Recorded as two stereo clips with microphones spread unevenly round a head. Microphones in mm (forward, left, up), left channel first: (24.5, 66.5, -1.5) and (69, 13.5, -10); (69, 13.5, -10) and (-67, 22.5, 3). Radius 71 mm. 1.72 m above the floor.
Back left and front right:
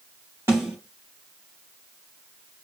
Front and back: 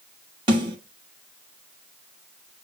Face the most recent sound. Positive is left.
turn(degrees=-120)